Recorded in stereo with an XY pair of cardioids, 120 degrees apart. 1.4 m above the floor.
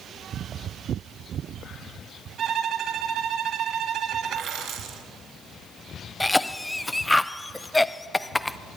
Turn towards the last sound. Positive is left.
turn(degrees=10)